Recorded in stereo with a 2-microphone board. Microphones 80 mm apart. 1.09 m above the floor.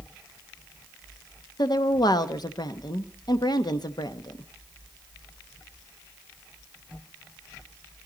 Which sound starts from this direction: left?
A woman speaking, at 1.6 s.